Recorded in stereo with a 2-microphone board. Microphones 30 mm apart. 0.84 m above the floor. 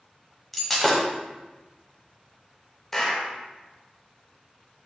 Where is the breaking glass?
5° left (ahead or behind), 0.8 m.